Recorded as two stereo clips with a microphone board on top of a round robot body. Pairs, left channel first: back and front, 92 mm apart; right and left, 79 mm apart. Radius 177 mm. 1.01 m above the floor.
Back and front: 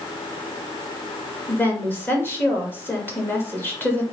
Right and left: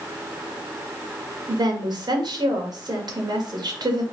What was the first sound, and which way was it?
A woman speaking, 115° left.